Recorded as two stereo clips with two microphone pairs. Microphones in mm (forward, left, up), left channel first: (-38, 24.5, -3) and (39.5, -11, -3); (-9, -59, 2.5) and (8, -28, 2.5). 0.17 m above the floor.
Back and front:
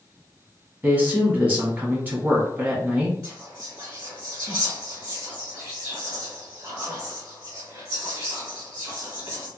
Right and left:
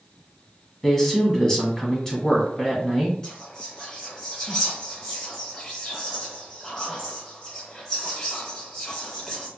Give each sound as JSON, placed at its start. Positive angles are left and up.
{"t": 0.8, "sound": "a man speaking", "azimuth_deg": -60, "distance_m": 1.1}
{"t": 3.2, "sound": "whispering", "azimuth_deg": -70, "distance_m": 1.2}